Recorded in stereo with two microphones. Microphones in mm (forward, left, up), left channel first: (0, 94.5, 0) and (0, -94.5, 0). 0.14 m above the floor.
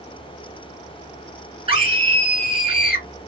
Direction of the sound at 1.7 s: 30° right (ahead or behind).